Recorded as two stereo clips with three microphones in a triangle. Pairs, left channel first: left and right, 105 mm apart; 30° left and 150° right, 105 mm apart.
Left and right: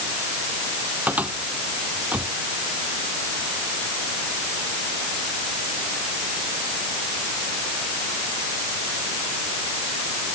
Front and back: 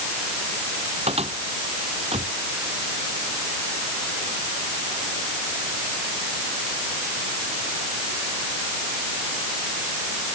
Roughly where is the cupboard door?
Behind.